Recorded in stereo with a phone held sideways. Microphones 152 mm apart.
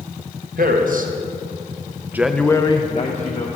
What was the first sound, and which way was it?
A man speaking, 70° right (ahead or behind).